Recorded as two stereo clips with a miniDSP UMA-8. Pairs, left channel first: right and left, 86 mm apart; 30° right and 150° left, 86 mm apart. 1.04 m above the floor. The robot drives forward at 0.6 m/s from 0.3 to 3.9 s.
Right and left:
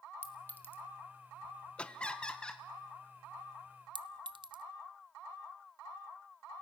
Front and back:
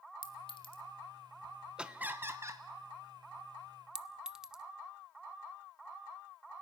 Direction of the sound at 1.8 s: 145° right.